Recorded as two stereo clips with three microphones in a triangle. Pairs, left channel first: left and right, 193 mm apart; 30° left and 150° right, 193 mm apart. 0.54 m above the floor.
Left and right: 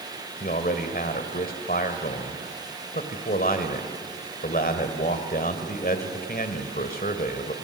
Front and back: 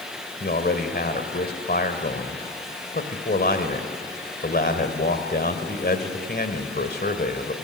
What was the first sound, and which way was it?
A man speaking, 55° left.